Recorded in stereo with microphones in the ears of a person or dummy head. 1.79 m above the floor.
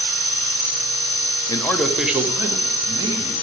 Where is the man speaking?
20° left (ahead or behind), 0.6 m; by 3.3 s 20° right (ahead or behind), 2 m.